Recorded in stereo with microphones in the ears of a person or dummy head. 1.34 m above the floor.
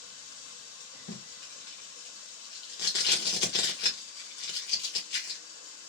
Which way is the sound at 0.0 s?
80° left.